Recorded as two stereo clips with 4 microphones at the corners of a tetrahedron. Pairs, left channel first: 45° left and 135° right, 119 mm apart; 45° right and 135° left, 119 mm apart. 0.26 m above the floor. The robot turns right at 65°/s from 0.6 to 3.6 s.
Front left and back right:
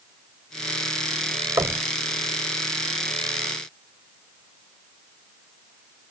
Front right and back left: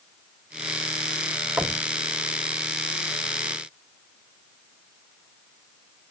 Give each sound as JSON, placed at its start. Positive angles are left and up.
{"t": 1.6, "sound": "knocking", "azimuth_deg": -170, "distance_m": 1.0}